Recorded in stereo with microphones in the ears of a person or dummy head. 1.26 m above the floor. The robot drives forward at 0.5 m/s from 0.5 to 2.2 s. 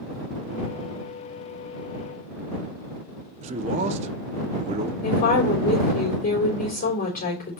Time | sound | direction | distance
3.4 | a man speaking | 40° right (ahead or behind) | 0.7 m
5.0 | a woman speaking | 50° left (ahead or behind) | 3.5 m